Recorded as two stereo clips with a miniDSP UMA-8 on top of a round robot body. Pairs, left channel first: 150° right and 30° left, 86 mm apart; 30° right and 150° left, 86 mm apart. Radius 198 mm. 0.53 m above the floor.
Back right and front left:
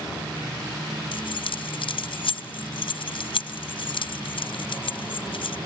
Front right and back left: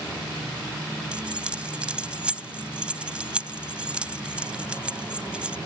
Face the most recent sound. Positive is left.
turn(degrees=-135)